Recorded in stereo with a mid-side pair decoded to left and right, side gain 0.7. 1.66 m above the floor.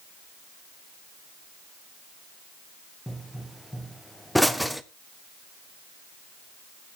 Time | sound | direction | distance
3.1 | a pop | straight ahead | 0.6 m